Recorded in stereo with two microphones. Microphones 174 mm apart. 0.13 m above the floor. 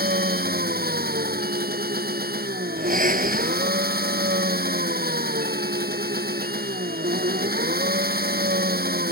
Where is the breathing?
50° right (ahead or behind).